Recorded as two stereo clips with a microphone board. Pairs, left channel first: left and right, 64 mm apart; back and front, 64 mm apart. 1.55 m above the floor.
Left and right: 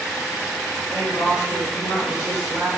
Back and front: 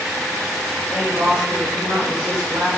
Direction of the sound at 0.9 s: 40° left.